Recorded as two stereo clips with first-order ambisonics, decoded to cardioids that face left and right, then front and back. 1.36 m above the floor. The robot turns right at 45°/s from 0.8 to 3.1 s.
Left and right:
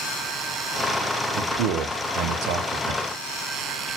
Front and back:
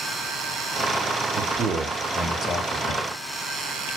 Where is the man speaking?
125° right, 0.5 m; by 3.0 s 50° right, 0.5 m.